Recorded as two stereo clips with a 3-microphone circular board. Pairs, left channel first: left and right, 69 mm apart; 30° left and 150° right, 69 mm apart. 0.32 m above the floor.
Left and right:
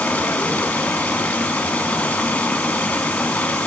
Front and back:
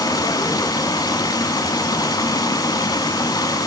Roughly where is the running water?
Ahead.